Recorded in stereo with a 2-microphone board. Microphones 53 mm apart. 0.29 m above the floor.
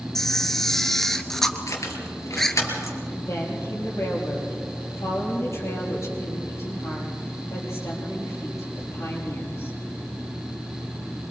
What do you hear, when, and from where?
0.1 s a camera shutter: 5° left (ahead or behind), 1.1 m
1.7 s keys jangling: 70° left (ahead or behind), 3 m
3.1 s a woman speaking: 55° left (ahead or behind), 7 m